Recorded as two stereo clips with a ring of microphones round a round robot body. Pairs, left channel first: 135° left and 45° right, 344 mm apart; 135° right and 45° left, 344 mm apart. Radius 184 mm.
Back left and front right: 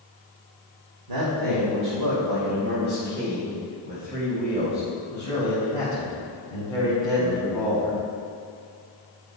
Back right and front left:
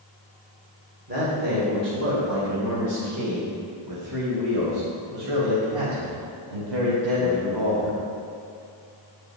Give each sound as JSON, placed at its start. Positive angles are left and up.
{"t": 1.1, "sound": "a man speaking", "azimuth_deg": -20, "distance_m": 2.0}